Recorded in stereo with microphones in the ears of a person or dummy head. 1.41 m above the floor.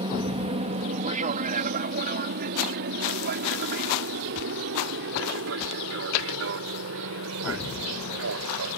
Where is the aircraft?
25° right (ahead or behind); by 8.8 s 70° right (ahead or behind).